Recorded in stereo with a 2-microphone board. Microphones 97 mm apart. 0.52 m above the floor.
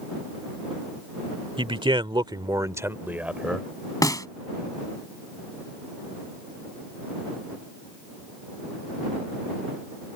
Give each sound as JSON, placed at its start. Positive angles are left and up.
{"t": 1.6, "sound": "a man speaking", "side_deg": -65}
{"t": 4.0, "sound": "a snare drum", "side_deg": 40}